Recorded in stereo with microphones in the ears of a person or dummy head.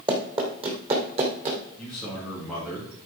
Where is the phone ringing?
I don't hear a phone ringing.